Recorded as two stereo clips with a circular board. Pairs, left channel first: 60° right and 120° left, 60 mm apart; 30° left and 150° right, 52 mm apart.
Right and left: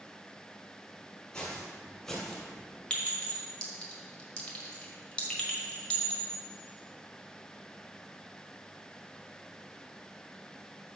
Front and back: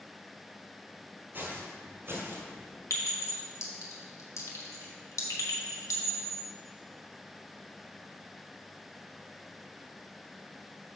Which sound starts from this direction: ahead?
A clink, at 2.9 s.